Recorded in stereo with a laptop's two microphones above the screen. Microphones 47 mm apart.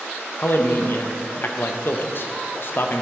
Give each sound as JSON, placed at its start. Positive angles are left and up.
{"t": 0.4, "sound": "a man speaking", "side_deg": 50, "distance_m": 0.6}